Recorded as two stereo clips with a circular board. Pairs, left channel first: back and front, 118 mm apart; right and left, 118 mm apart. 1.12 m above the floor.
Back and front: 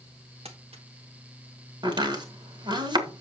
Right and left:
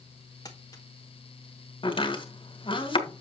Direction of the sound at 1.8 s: 50° right.